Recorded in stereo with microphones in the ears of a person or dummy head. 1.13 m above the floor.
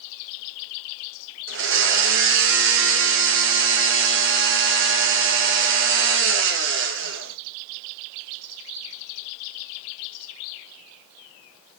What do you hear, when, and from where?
1.5 s a blender: 65° right (ahead or behind), 1.1 m